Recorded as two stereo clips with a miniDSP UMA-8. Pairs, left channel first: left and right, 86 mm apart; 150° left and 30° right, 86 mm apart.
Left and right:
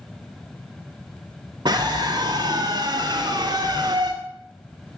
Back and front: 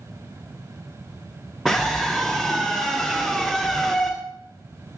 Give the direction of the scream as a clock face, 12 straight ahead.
4 o'clock.